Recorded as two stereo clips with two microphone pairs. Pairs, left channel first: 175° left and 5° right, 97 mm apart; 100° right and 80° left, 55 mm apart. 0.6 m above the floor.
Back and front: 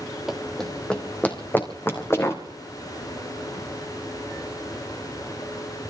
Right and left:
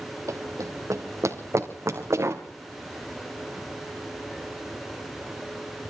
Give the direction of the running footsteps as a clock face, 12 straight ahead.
9 o'clock.